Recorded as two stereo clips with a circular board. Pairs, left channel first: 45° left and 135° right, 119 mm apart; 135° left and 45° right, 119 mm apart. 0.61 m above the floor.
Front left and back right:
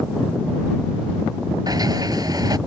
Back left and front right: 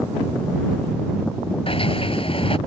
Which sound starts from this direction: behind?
A sliding door, at 1.7 s.